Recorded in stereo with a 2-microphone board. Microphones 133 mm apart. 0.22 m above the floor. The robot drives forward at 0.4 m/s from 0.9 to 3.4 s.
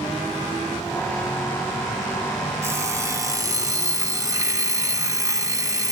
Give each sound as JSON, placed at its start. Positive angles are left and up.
{"t": 2.6, "sound": "an alarm clock", "side_deg": -20, "distance_m": 0.9}